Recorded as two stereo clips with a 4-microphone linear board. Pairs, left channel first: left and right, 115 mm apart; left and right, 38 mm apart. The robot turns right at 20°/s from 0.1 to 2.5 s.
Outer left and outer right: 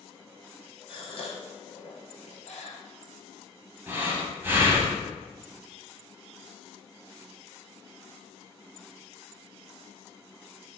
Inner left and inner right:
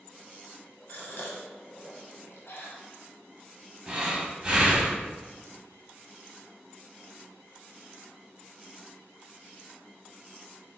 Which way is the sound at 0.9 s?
50° left (ahead or behind).